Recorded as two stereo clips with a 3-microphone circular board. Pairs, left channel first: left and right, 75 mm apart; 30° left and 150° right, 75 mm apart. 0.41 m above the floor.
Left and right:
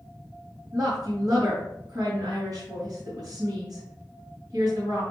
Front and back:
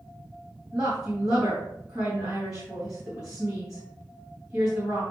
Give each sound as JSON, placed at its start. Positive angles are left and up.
{"t": 0.7, "sound": "a woman speaking", "azimuth_deg": -75, "distance_m": 3.0}